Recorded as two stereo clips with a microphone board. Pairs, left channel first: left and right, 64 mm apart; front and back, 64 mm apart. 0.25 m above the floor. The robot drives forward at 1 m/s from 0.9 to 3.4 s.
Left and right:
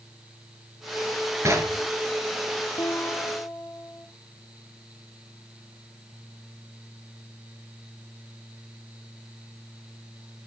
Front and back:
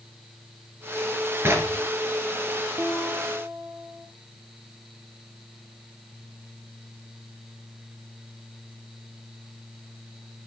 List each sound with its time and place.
1.4 s knocking: 130° right, 2.5 m; by 1.8 s 135° right, 3 m
2.8 s a guitar: 125° left, 1.3 m; by 4.1 s 145° left, 1.7 m